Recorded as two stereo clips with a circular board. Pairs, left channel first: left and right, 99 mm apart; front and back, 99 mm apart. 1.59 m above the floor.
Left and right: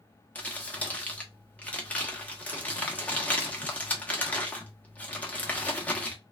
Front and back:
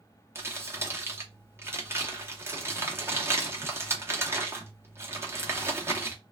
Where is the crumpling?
150° left, 0.9 m.